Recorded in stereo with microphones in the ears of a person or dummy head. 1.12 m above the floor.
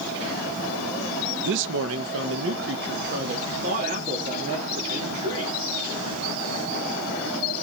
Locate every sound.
1.4 s a man speaking: 65° right (ahead or behind), 0.9 m; by 5.6 s 30° right (ahead or behind), 3.5 m